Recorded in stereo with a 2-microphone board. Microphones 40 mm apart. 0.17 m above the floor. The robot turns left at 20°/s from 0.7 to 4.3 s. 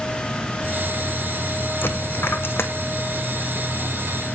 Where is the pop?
I don't hear a pop.